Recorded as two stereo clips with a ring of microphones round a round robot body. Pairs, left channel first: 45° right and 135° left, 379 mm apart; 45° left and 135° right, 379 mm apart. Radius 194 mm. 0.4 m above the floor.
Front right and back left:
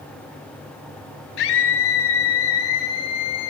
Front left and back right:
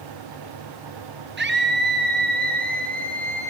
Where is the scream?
70° right, 6.5 m; by 3.5 s 65° right, 7.5 m.